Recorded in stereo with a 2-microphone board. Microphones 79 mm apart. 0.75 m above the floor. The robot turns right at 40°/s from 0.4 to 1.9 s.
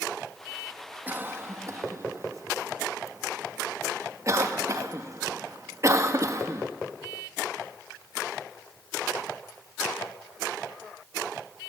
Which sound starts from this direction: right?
A cough, at 1.1 s.